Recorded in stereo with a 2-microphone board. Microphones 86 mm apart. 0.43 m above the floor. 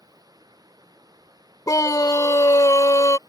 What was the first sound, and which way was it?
Running water, 45° right (ahead or behind).